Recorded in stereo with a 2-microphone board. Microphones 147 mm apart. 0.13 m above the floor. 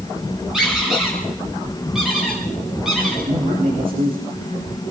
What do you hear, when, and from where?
0.5 s a squeak: 5° right (ahead or behind), 8.5 m
3.3 s a man speaking: 80° right, 8 m